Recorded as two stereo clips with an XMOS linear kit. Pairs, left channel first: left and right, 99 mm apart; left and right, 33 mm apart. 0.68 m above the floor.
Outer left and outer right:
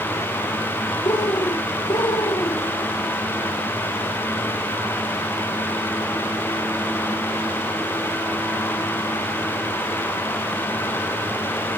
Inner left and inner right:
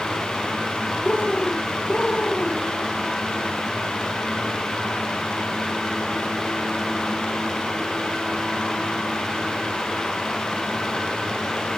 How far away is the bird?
About 1.8 m.